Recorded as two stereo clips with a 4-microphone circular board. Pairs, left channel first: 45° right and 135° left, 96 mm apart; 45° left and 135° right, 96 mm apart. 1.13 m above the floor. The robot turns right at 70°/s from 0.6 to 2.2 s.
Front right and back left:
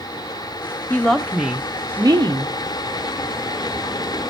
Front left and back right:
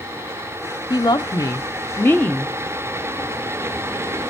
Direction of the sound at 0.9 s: 20° left.